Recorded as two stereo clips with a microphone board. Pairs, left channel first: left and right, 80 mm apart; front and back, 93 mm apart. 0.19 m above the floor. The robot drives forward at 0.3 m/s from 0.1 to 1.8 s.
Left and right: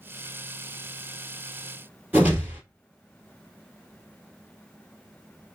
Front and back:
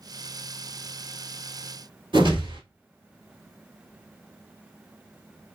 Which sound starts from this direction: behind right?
A whoosh, at 2.1 s.